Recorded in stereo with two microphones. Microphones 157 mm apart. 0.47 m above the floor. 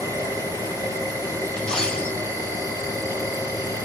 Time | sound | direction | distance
0.0 | an insect | 25° right (ahead or behind) | 2.5 m
1.6 | a dropped coin | 5° left (ahead or behind) | 1.6 m